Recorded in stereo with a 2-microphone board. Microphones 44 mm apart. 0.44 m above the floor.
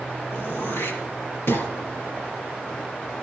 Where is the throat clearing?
65° left (ahead or behind), 5 m.